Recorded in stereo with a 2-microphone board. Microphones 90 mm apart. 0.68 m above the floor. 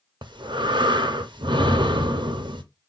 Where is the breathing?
60° right (ahead or behind), 0.5 m.